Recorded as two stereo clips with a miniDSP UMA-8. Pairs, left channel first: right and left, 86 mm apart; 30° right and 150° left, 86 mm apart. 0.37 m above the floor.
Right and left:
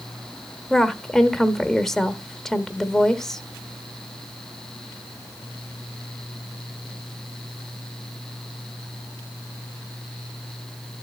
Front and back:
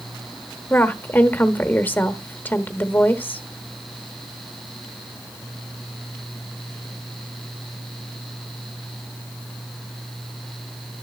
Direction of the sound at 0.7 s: 15° right.